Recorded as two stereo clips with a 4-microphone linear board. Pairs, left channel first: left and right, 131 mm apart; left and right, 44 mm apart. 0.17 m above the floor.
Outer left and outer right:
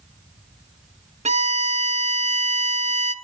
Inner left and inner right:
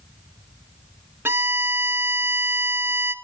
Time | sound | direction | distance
1.2 | a violin | 60° right (ahead or behind) | 0.7 m